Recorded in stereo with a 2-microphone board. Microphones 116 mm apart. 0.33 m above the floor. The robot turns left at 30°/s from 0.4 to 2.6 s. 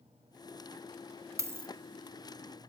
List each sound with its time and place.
1.4 s a dropped coin: 25° right (ahead or behind), 0.6 m; by 1.7 s 15° right (ahead or behind), 0.6 m